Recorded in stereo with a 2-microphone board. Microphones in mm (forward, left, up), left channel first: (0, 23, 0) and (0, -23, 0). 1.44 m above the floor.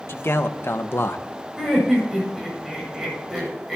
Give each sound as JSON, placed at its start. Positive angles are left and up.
{"t": 0.1, "sound": "a man speaking", "side_deg": 65, "distance_m": 1.4}
{"t": 1.6, "sound": "laughter", "side_deg": -5, "distance_m": 8.5}